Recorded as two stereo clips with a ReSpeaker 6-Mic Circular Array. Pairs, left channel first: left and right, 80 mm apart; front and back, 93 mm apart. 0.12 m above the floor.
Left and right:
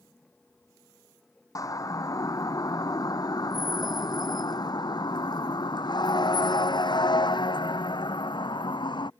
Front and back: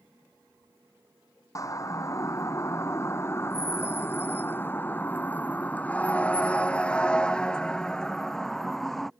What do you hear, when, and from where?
1.6 s a siren: 50° left; by 9.1 s 85° left